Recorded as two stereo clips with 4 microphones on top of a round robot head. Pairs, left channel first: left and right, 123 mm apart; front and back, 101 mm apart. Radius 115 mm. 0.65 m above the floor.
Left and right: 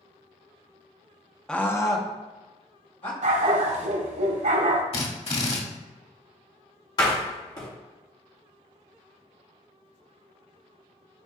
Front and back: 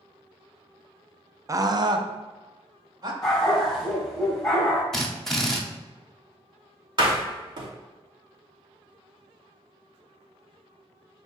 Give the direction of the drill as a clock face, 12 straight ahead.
9 o'clock.